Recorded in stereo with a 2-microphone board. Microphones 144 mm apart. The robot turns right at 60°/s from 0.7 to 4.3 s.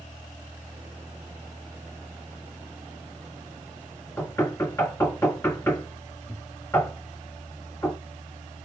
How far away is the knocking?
About 1.2 m.